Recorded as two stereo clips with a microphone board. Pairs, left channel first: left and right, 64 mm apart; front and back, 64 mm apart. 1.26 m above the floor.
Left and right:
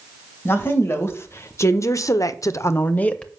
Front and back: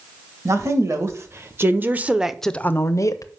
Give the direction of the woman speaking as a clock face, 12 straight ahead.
7 o'clock.